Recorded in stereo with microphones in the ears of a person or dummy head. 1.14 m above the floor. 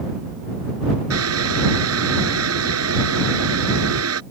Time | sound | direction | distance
1.1 | boiling | 90° right | ?